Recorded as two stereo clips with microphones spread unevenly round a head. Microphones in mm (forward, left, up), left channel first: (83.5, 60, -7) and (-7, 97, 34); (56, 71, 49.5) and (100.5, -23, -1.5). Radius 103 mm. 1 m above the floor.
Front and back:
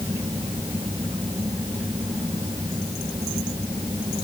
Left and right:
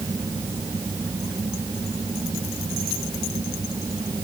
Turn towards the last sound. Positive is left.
turn(degrees=-135)